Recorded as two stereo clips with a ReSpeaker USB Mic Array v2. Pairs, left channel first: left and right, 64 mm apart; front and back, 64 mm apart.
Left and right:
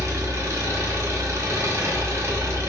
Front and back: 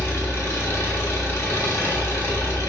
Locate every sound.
0.0 s an engine running: 45° right, 0.9 m